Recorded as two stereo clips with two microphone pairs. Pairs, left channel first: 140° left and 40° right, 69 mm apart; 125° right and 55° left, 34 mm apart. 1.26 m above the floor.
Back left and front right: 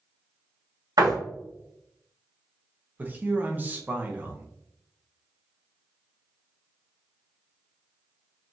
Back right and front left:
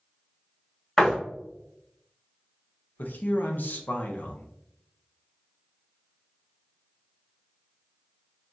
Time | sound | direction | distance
1.0 | a door slam | 50° right | 1.9 m
3.0 | a man speaking | 105° right | 0.8 m